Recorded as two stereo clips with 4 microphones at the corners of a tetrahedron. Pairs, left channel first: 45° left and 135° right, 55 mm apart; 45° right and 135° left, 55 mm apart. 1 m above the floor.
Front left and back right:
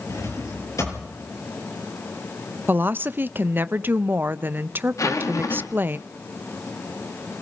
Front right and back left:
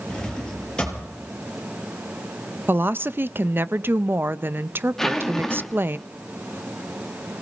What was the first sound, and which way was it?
A drawer, 30° left.